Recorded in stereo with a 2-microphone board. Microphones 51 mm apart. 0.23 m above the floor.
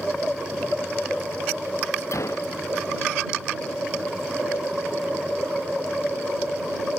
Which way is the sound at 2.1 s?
70° left (ahead or behind).